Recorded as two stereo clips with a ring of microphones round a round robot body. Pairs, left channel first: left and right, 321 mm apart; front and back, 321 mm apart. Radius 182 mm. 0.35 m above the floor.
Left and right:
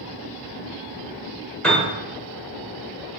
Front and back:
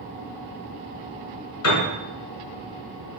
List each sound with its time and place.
1.6 s a piano: 5° left, 1.4 m